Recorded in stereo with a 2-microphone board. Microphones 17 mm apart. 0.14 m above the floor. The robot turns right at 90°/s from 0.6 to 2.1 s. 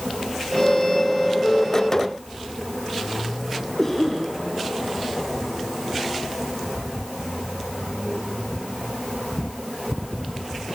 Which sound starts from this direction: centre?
A cough, at 3.8 s.